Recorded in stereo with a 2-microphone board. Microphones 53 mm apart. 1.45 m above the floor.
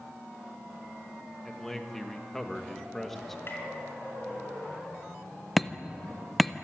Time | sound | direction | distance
1.4 | a man speaking | 5° left (ahead or behind) | 1.6 m
3.5 | tapping | 45° left (ahead or behind) | 4 m
5.6 | hammering | centre (ahead or behind) | 0.7 m